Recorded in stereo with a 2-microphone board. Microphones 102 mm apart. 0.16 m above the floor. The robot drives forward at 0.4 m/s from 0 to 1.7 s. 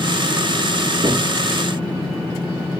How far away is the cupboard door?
About 1.5 m.